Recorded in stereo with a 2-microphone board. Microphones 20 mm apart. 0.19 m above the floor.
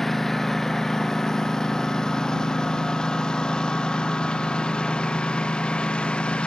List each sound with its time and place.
0.0 s a lawn mower: 15° left (ahead or behind); by 6.5 s 55° left (ahead or behind)